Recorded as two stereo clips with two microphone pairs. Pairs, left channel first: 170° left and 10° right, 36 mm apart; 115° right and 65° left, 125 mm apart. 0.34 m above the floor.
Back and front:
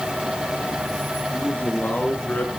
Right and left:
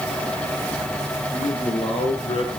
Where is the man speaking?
150° right, 5.5 m.